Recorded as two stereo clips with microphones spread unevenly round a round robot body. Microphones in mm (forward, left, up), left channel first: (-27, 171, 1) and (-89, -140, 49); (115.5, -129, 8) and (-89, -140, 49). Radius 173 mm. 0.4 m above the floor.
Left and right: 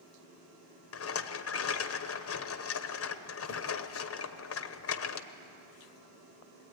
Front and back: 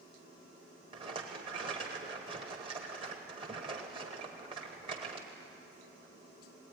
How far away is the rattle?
About 1.1 m.